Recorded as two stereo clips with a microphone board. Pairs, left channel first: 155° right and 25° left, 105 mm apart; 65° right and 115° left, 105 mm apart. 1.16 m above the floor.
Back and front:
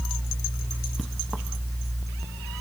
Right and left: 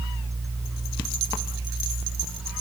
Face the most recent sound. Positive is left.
No sound to turn to.